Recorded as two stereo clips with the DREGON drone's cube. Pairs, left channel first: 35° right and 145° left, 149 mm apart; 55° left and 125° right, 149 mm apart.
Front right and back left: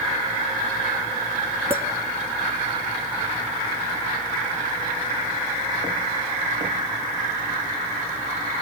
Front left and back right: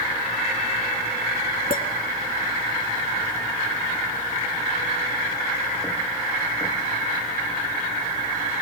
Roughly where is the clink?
Left.